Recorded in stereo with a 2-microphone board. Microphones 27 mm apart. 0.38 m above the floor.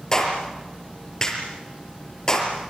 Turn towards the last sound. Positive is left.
turn(degrees=20)  # may be behind; listen again after turning